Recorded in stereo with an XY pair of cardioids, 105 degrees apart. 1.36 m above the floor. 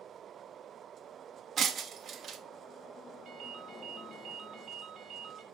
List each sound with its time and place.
1.6 s breaking glass: 45° right, 1.3 m
3.2 s a ringtone: 60° right, 2 m